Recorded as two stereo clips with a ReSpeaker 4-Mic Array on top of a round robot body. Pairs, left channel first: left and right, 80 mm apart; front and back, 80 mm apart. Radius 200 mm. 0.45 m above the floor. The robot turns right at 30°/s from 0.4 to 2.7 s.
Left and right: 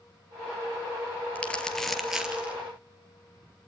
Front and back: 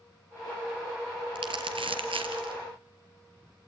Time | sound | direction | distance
1.4 | crumpling | 160° left | 3.5 m